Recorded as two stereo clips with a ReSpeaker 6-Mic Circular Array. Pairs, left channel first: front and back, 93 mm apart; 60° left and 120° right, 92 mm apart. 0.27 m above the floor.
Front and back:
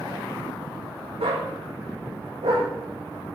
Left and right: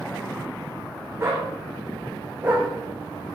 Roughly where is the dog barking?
Behind.